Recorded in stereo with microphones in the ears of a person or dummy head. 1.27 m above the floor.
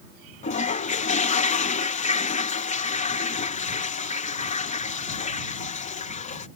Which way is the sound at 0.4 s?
40° left (ahead or behind).